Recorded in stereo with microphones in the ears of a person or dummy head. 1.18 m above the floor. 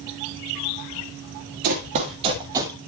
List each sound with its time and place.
1.6 s running footsteps: 35° right (ahead or behind), 1.4 m; by 2.8 s 20° right (ahead or behind), 1.5 m